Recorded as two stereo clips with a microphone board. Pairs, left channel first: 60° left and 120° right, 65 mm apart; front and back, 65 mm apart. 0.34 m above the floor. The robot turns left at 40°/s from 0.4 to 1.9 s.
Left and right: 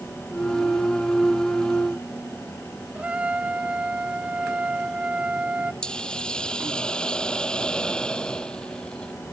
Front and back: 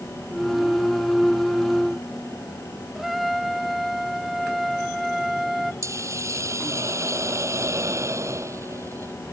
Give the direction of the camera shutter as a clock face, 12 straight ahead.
I don't hear a camera shutter.